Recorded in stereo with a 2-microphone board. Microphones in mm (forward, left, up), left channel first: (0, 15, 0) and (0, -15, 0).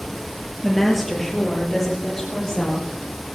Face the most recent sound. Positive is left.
turn(degrees=20)  # may be behind; listen again after turning